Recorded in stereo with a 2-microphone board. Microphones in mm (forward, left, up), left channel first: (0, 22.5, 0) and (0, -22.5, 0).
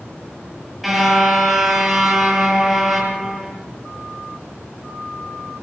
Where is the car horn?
Centre (ahead or behind), 7.5 m.